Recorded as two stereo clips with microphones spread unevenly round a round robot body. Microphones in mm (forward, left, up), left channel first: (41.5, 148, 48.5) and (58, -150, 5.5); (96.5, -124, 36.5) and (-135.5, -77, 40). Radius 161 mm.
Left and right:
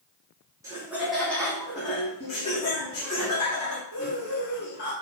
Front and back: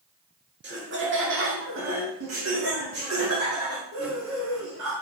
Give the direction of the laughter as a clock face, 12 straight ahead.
5 o'clock.